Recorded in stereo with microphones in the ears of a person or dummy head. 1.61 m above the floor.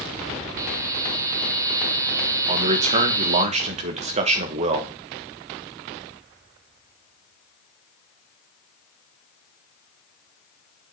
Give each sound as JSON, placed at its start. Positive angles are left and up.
{"t": 0.6, "sound": "a buzzer", "side_deg": -20, "distance_m": 0.8}
{"t": 2.5, "sound": "a man speaking", "side_deg": -40, "distance_m": 1.2}